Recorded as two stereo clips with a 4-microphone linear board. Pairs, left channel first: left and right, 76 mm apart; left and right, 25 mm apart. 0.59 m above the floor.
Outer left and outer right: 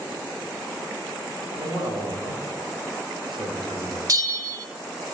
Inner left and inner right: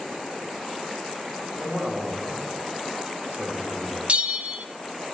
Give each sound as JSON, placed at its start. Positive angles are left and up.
{"t": 1.5, "sound": "a man speaking", "side_deg": -70, "distance_m": 3.0}
{"t": 4.1, "sound": "a bell", "side_deg": -50, "distance_m": 0.7}